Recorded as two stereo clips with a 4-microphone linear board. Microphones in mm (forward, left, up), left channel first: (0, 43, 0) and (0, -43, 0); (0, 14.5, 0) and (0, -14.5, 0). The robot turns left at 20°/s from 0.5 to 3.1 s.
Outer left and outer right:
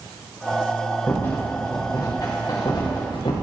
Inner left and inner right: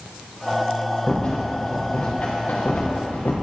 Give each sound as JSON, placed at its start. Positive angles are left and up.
{"t": 1.1, "sound": "a rattle", "side_deg": 25, "distance_m": 4.0}